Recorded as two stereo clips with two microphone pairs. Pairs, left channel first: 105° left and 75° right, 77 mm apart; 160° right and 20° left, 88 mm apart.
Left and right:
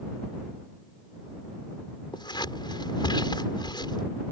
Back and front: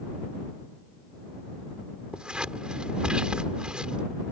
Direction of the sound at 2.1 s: 100° left.